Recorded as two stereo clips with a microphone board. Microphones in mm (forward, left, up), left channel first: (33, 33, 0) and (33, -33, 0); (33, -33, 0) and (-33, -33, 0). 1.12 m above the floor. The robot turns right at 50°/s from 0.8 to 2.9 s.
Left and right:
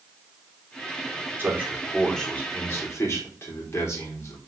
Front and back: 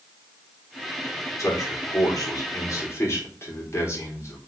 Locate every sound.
1.4 s a man speaking: 35° right, 4 m; by 4.4 s 45° left, 4 m